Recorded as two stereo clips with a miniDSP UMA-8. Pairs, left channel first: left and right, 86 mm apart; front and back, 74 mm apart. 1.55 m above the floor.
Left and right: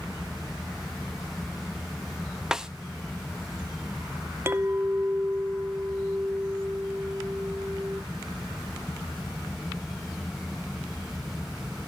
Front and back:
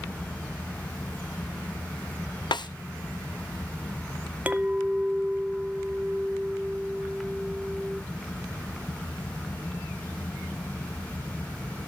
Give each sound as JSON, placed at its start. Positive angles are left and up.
{"t": 2.5, "sound": "a snare drum", "azimuth_deg": -5, "distance_m": 0.6}
{"t": 4.5, "sound": "a clink", "azimuth_deg": -125, "distance_m": 0.6}